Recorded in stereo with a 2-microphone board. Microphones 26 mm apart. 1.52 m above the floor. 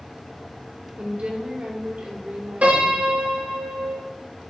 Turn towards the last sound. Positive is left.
turn(degrees=-70)  # may be behind; listen again after turning